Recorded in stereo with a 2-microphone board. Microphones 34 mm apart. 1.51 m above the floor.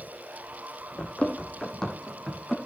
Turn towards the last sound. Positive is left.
turn(degrees=10)  # may be behind; listen again after turning